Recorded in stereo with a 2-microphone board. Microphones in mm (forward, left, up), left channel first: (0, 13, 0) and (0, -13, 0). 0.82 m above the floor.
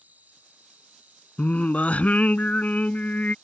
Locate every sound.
0.0 s an insect: 85° right
1.4 s singing: 65° left (ahead or behind)